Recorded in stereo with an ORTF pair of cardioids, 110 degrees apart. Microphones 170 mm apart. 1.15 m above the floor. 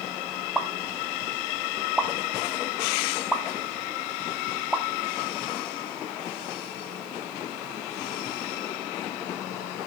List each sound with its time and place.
0.6 s a pop: 5° right, 1.3 m